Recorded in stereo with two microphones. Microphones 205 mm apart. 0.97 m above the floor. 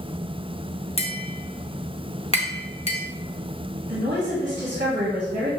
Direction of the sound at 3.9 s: 45° right (ahead or behind).